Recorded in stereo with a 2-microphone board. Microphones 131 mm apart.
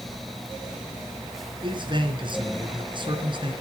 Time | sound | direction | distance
1.6 | a man speaking | 40° right (ahead or behind) | 3.5 m